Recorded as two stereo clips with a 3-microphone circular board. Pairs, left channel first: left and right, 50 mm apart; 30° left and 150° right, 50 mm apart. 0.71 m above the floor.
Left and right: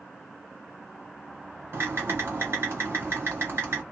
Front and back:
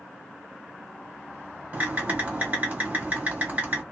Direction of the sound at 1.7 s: 105° right.